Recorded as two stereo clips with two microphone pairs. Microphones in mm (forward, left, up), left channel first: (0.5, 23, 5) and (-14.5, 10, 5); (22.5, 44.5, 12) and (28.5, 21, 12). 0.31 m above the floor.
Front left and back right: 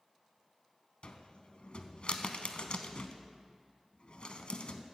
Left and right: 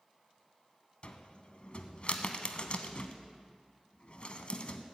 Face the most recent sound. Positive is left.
turn(degrees=65)